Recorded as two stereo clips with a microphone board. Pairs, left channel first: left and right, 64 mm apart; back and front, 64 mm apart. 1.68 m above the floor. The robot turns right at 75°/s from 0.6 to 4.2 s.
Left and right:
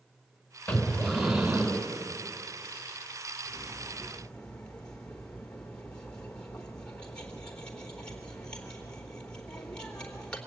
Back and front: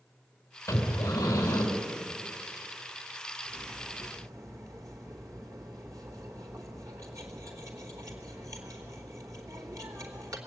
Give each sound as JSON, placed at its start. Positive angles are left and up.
{"t": 0.7, "sound": "breathing", "azimuth_deg": 140, "distance_m": 3.5}
{"t": 3.5, "sound": "cutlery clinking", "azimuth_deg": -40, "distance_m": 3.0}